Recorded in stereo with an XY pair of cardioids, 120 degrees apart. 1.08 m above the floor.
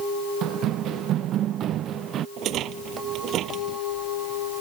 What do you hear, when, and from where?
0.4 s running footsteps: 70° right; by 2.3 s 60° right
2.4 s a rattle: 65° right